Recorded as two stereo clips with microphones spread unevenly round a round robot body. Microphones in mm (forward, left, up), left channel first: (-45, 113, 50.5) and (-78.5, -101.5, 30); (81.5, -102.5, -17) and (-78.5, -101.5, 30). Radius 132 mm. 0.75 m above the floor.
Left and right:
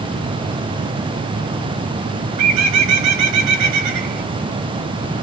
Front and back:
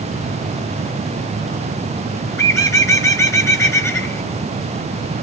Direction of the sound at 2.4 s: 75° right.